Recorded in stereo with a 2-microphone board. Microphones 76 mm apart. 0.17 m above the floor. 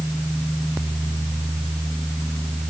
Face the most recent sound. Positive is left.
No sound to turn to.